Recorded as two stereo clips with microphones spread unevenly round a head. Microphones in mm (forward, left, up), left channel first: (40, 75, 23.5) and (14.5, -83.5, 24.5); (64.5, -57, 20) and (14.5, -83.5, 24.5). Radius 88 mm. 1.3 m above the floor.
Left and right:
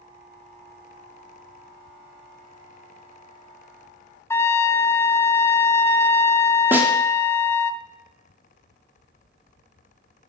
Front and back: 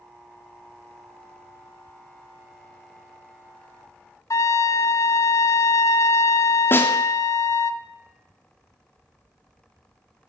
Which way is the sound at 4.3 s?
5° left.